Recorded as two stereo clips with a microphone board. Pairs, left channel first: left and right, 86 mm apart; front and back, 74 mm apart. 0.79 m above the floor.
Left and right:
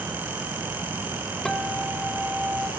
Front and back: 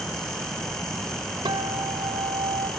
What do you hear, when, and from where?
1.4 s a guitar: 175° left, 1.5 m